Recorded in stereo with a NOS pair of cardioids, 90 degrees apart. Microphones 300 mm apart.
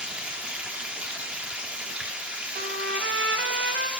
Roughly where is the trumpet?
Ahead right.